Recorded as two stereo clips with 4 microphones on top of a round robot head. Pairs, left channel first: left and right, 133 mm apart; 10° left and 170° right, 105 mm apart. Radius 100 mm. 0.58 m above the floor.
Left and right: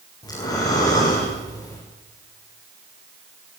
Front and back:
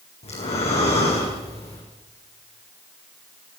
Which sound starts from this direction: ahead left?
Breathing, at 0.2 s.